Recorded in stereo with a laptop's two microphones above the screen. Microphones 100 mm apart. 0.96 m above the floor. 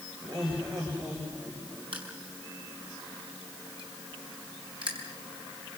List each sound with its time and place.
0.2 s laughter: 50° right (ahead or behind), 5.5 m; by 1.8 s 40° right (ahead or behind), 5 m
1.9 s crushing: 60° right (ahead or behind), 5 m